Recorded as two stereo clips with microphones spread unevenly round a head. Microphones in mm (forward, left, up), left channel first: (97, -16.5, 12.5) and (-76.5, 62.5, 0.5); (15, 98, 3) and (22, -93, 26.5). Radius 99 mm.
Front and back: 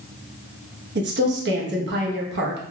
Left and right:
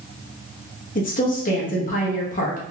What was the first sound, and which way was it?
A woman speaking, 135° left.